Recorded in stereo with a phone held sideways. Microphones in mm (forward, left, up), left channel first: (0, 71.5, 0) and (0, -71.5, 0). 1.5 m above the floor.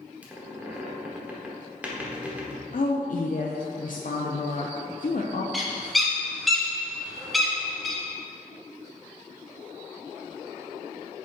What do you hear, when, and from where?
0.2 s a squeak: 10° right (ahead or behind), 1.2 m
2.7 s a woman speaking: 65° left (ahead or behind), 0.5 m
5.5 s a bird: centre (ahead or behind), 1.0 m